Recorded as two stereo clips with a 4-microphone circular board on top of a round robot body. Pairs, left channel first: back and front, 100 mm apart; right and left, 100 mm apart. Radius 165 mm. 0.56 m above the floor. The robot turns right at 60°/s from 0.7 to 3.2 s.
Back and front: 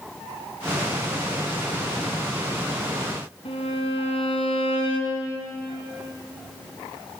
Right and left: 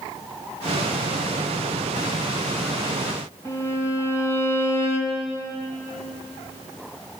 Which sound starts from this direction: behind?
A violin, at 3.5 s.